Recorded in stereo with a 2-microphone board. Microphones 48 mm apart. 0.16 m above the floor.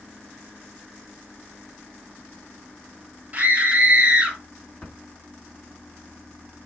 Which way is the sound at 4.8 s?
20° left (ahead or behind).